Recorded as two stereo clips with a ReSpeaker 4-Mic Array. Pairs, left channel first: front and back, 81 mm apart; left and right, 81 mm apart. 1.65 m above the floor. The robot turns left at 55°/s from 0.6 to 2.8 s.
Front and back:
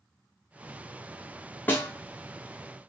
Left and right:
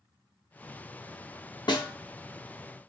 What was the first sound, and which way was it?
A snare drum, 65° left.